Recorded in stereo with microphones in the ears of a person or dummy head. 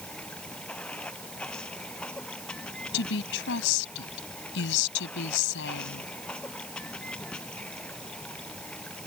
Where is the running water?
5° left (ahead or behind).